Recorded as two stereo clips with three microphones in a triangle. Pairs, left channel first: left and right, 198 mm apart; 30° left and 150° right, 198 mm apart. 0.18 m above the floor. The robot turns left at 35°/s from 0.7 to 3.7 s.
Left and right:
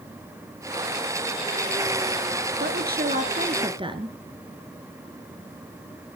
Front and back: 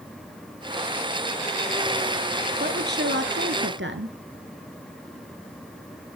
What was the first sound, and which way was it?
A woman speaking, 115° right.